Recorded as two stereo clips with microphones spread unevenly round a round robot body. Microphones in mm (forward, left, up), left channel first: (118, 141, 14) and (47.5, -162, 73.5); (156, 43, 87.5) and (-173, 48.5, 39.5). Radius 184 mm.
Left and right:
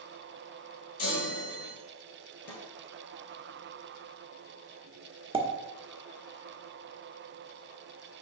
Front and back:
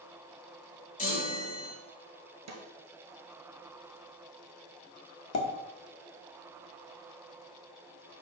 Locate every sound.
1.0 s a chime: 65° left, 2.5 m
2.5 s a snare drum: 135° left, 1.5 m
5.3 s a pop: 25° right, 1.1 m